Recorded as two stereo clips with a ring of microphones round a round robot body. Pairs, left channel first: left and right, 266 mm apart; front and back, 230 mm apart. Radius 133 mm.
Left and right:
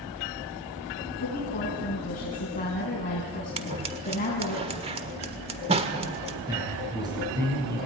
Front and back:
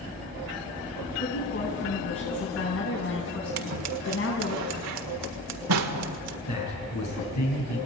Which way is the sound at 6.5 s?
15° right.